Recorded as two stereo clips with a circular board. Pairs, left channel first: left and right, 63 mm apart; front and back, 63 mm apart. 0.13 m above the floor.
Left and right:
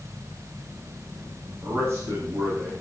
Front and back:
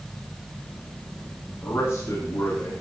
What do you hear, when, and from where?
1.6 s a man speaking: 50° right, 9.5 m; by 2.7 s 40° right, 9 m